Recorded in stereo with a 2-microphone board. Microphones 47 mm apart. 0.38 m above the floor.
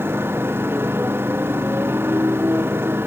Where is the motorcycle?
55° right (ahead or behind).